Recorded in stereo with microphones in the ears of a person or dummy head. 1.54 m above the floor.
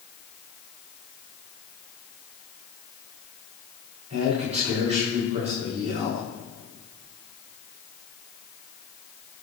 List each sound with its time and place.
4.1 s a man speaking: 35° right (ahead or behind), 6.5 m